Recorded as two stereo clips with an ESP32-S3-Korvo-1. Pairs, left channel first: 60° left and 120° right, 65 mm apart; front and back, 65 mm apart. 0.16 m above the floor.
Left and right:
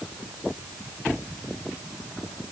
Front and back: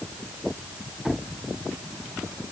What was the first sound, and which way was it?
Only background noise.